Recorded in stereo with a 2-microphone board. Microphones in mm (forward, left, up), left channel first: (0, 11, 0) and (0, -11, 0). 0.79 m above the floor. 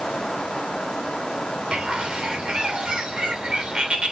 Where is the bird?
50° right (ahead or behind), 3 m.